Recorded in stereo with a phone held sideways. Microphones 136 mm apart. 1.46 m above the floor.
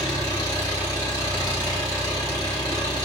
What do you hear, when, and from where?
0.0 s an engine running: 30° left (ahead or behind), 1.1 m